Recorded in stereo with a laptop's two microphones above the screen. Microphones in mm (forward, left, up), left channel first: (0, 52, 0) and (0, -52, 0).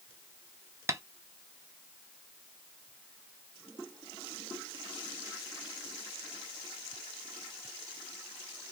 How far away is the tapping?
About 0.6 m.